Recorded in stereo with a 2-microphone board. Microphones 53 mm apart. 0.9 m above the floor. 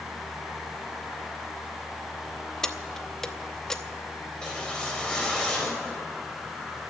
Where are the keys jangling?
10° left (ahead or behind), 0.8 m.